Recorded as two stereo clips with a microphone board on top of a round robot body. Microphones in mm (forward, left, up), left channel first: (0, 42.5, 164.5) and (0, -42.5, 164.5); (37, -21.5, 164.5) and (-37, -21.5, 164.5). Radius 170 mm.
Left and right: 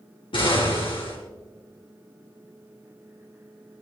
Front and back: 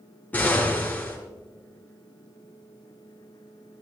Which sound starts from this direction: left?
An explosion, at 0.3 s.